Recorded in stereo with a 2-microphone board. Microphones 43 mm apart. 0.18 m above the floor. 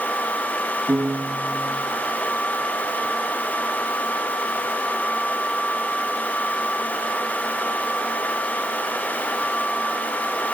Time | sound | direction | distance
0.9 | a piano | 85° right | 7 m